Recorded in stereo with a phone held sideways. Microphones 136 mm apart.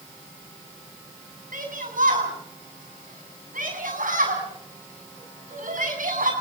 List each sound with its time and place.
1.5 s a shout: 85° right, 7.5 m